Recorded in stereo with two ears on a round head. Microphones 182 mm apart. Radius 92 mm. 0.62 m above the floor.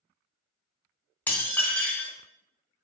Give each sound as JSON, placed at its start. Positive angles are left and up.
{"t": 1.3, "sound": "dishes clattering", "side_deg": 10, "distance_m": 0.7}